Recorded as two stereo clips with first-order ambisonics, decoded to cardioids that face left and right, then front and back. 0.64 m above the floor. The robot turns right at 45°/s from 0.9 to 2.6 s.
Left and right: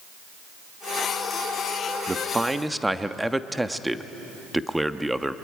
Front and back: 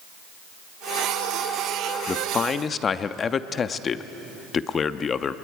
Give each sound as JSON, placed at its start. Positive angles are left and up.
{"t": 2.1, "sound": "a man speaking", "azimuth_deg": -30, "distance_m": 0.5}